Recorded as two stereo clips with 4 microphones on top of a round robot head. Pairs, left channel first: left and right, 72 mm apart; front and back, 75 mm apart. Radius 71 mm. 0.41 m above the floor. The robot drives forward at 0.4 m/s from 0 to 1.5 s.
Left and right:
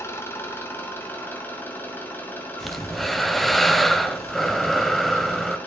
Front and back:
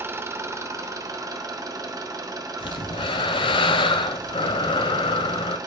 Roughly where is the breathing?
Ahead.